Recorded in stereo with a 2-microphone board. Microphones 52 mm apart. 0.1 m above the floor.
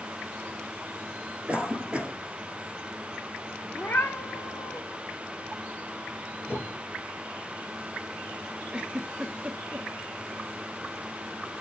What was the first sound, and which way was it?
A cough, 20° right (ahead or behind).